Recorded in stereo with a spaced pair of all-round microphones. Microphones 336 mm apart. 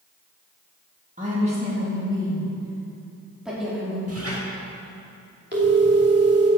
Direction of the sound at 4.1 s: 45° right (ahead or behind).